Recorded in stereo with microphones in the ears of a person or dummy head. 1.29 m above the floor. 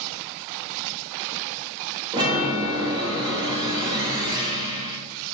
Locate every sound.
2.1 s a chime: 20° right (ahead or behind), 0.6 m